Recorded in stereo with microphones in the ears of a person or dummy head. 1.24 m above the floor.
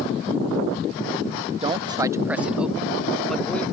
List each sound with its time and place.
1.6 s a man speaking: 25° right (ahead or behind); by 3.6 s 10° left (ahead or behind)